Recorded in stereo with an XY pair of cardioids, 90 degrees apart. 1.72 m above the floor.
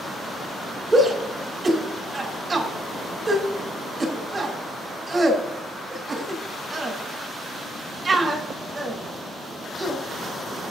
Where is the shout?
35° right, 4 m.